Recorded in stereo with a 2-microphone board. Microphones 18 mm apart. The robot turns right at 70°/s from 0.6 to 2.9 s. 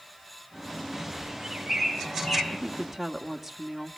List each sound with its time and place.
1.2 s a bird: 40° right (ahead or behind), 4 m; by 2.4 s 50° left (ahead or behind), 4 m
2.5 s a woman speaking: 30° right (ahead or behind), 1.4 m; by 4.0 s 5° right (ahead or behind), 1.4 m